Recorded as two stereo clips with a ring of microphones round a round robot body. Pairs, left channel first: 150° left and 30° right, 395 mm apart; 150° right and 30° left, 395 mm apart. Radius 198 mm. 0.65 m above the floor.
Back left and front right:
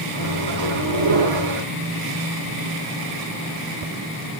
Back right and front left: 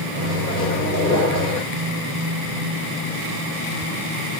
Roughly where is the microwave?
Right.